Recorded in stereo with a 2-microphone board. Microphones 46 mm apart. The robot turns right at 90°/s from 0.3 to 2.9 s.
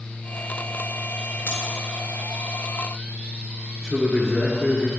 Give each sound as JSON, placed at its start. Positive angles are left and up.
{"t": 1.5, "sound": "scissors", "side_deg": 55, "distance_m": 2.5}
{"t": 3.8, "sound": "a man speaking", "side_deg": -5, "distance_m": 1.2}